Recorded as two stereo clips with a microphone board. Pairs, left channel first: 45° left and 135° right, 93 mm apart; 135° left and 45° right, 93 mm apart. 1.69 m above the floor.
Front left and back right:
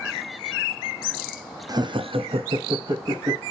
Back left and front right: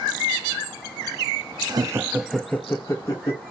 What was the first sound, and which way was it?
Laughter, 90° right.